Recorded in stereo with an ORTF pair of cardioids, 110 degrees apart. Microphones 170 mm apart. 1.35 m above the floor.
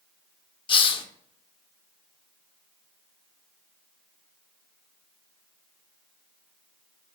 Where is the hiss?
30° left, 0.6 m.